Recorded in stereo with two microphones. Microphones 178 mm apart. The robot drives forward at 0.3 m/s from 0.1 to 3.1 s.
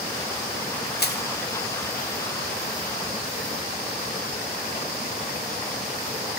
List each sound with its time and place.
1.0 s crushing: 65° left (ahead or behind), 0.8 m; by 1.2 s 70° left (ahead or behind), 0.8 m